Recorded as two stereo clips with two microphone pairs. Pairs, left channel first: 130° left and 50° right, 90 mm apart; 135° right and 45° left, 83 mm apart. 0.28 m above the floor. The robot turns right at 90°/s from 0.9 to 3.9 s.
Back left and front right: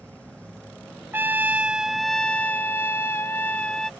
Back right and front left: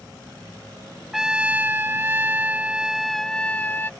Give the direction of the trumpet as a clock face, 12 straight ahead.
1 o'clock.